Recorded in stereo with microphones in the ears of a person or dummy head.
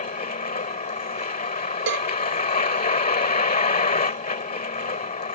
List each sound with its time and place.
0.0 s a vehicle: 35° left (ahead or behind)
1.9 s a cowbell: 80° right